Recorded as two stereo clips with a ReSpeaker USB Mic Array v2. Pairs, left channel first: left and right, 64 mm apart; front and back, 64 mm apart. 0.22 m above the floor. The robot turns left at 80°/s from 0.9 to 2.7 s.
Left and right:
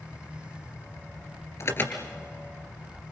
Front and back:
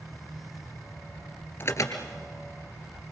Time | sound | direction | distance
1.6 | an alarm | 50° left | 2.5 m